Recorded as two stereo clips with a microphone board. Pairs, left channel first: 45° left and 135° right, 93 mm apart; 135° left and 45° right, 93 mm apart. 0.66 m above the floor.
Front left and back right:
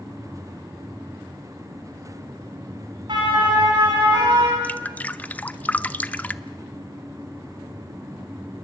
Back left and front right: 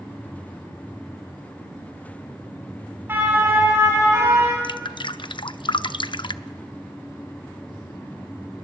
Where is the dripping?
115° left, 0.6 m.